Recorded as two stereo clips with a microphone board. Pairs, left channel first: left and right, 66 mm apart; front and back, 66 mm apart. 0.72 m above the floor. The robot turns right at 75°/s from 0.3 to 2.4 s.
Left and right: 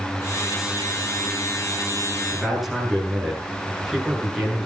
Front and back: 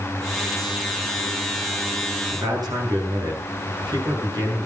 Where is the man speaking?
175° left, 9 m; by 4.7 s straight behind, 9 m.